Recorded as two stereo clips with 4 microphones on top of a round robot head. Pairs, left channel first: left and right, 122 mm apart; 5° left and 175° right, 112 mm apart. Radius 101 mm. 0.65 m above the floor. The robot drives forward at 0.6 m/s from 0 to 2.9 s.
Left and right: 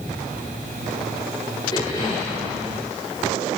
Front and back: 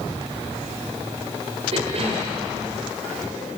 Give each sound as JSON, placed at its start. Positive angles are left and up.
{"t": 1.7, "sound": "a cough", "azimuth_deg": 150, "distance_m": 2.5}